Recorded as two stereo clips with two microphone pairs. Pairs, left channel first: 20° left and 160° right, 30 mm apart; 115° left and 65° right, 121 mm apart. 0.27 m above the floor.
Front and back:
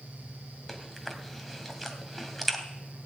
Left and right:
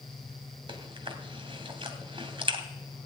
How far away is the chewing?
About 1.9 m.